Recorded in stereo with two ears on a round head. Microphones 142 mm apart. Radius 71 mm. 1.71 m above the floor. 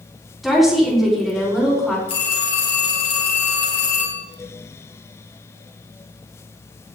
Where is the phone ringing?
35° left (ahead or behind), 4 m.